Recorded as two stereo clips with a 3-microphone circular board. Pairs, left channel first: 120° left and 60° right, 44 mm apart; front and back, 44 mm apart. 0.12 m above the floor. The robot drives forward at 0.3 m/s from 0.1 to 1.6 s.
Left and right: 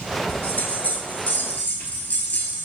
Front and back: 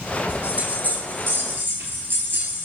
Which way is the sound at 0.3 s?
140° left.